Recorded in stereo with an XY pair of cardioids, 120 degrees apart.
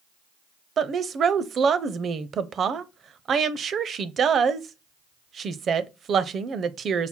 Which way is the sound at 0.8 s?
45° right.